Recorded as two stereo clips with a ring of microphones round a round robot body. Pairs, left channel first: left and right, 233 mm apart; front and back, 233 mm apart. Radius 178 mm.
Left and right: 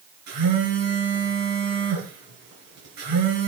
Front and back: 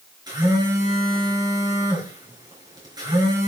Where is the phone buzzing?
105° right, 5 m.